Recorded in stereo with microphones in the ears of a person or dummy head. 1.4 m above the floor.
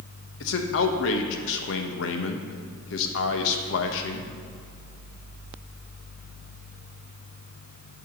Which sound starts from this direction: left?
A man speaking, at 0.4 s.